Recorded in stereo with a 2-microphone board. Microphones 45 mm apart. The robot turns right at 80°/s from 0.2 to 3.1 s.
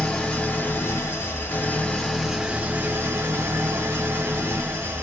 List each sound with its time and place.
0.0 s an engine running: 20° left, 1.0 m; by 5.0 s 110° right, 1.0 m